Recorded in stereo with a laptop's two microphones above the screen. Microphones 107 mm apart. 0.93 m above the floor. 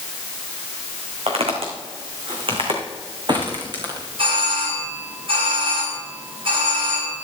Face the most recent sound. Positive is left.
turn(degrees=-60)  # may be behind; listen again after turning